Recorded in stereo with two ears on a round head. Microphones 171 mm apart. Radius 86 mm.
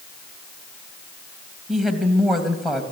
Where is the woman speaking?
Centre (ahead or behind), 3 m.